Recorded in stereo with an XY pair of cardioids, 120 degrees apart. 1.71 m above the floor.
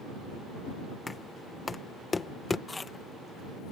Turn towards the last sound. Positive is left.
turn(degrees=20)